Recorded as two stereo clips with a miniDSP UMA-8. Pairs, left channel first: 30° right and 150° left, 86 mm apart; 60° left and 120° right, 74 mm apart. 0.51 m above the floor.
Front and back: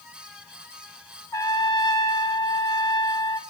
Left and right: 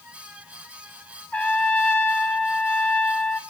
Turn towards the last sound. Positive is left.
turn(degrees=0)